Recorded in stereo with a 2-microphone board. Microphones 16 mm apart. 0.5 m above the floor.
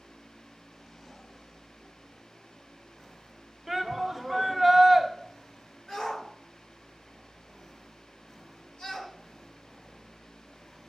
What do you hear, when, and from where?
3.7 s a shout: 15° right (ahead or behind), 1.2 m
5.9 s a shout: 60° left (ahead or behind), 2.5 m